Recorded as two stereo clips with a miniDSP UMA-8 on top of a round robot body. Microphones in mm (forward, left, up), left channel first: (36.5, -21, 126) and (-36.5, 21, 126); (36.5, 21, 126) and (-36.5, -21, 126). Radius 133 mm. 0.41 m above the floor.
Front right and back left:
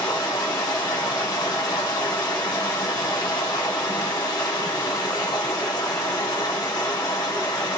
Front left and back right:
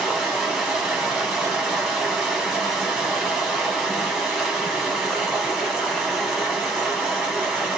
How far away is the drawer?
No drawer in this recording.